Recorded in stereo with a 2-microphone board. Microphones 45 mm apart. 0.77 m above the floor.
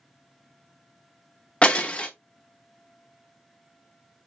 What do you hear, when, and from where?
1.6 s breaking glass: 25° left (ahead or behind), 0.6 m